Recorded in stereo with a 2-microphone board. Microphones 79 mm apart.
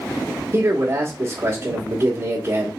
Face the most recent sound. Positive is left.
turn(degrees=-35)  # may be behind; listen again after turning